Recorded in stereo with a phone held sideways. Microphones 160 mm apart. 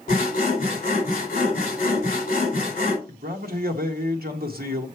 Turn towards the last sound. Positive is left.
turn(degrees=-70)  # may be behind; listen again after turning